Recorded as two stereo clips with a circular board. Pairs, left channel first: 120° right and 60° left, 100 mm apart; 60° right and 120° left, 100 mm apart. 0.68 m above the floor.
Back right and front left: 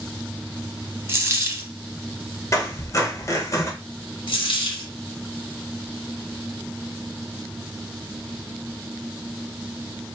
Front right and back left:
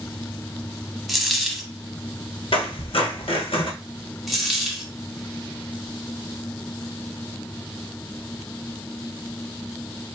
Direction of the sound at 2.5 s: 65° right.